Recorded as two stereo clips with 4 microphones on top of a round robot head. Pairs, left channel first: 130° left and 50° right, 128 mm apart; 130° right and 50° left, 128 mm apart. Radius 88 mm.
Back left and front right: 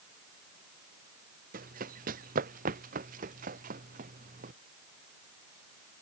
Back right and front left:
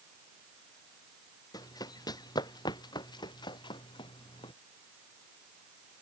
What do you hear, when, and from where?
1.5 s running footsteps: 70° right; by 4.5 s 75° right